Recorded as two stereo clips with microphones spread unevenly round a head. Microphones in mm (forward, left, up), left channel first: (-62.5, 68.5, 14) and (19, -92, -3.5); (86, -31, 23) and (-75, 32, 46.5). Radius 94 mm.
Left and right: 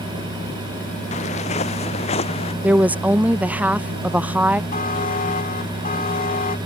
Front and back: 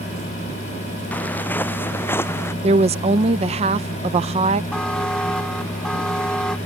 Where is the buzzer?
65° left.